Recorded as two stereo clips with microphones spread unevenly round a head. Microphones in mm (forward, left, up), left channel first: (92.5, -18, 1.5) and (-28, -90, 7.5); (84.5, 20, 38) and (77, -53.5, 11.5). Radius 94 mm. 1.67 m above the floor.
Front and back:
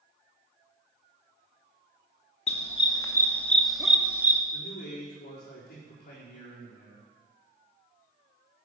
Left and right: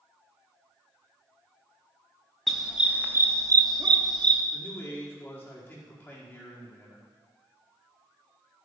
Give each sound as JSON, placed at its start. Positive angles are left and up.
{"t": 2.5, "sound": "a dog barking", "azimuth_deg": 20, "distance_m": 1.3}
{"t": 4.5, "sound": "a man speaking", "azimuth_deg": 25, "distance_m": 4.5}